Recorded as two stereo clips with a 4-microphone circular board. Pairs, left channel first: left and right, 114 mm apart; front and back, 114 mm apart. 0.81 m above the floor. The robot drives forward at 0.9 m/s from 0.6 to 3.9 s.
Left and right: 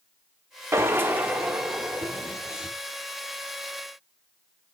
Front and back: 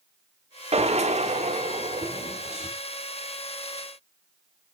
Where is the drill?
155° right, 1.0 m; by 2.7 s 170° right, 2.5 m.